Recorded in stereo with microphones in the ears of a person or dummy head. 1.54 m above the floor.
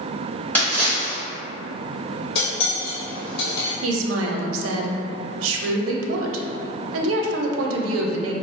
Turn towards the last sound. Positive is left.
turn(degrees=-85)